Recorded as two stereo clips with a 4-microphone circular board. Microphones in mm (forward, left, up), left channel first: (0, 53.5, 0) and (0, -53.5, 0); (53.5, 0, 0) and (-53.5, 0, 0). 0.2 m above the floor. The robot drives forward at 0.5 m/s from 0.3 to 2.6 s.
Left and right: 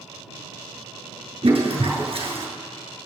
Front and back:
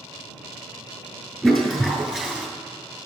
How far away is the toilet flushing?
About 3 m.